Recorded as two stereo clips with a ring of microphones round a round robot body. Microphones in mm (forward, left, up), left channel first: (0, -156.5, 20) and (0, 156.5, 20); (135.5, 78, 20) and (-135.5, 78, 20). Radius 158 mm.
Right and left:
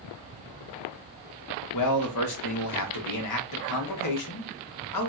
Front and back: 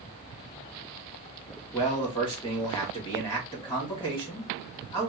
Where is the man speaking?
75° right, 1.6 m.